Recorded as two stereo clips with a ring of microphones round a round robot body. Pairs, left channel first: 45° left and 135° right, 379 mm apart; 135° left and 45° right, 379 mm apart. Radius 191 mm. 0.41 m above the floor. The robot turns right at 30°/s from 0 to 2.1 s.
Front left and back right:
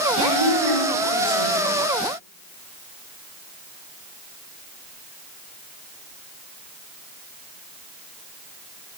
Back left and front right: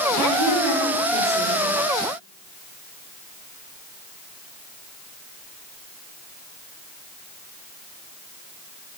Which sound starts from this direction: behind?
A woman speaking, at 0.2 s.